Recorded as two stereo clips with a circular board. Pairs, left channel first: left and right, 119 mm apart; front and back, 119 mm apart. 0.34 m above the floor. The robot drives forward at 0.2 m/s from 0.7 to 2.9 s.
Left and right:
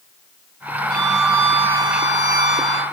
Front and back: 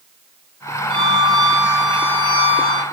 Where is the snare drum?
I don't hear a snare drum.